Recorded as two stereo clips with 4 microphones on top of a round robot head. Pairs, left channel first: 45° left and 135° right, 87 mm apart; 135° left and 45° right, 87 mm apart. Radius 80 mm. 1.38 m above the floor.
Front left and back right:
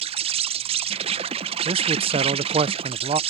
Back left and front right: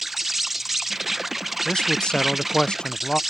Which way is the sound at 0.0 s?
135° right.